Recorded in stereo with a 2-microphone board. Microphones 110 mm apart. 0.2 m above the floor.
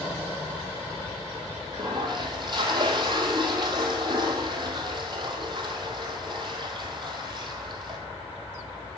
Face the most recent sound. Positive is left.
turn(degrees=-45)  # may be behind; listen again after turning